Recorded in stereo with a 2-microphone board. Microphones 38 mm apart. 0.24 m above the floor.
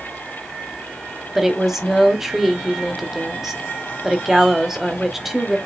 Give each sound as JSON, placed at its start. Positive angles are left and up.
{"t": 1.4, "sound": "a woman speaking", "side_deg": -10, "distance_m": 1.1}